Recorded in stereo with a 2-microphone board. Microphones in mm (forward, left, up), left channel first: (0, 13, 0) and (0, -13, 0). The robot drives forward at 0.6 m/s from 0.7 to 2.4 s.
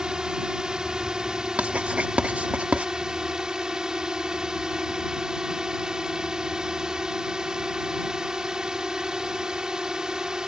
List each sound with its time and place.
0.0 s a drone: 30° right (ahead or behind)
1.6 s writing: 65° right (ahead or behind); by 2.9 s 70° right (ahead or behind)